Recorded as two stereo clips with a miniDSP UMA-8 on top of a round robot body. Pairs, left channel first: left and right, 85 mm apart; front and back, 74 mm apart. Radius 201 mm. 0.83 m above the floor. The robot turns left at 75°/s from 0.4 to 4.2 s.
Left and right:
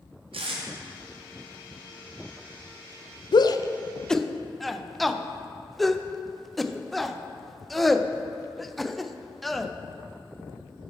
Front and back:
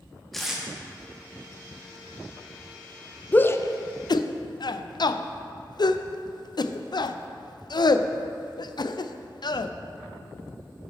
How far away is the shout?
About 0.5 m.